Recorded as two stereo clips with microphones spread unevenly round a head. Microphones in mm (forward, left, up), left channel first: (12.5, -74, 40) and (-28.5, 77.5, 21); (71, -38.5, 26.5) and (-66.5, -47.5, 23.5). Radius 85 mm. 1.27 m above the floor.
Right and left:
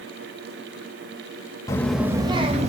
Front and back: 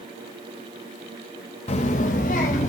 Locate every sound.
1.7 s a child speaking: 20° right, 0.8 m; by 2.7 s 55° left, 1.3 m